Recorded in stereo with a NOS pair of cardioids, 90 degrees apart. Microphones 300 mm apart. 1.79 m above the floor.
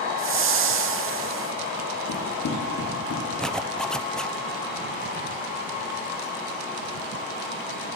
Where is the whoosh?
45° right, 2 m.